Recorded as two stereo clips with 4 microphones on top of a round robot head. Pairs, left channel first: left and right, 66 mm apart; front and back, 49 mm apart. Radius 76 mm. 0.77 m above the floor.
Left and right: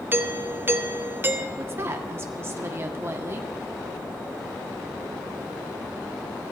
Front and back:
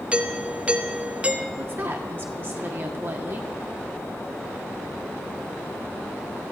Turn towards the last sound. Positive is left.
turn(degrees=-140)